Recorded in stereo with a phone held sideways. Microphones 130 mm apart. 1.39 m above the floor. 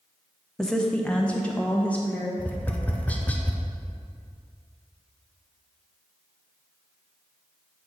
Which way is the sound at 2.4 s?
10° left (ahead or behind).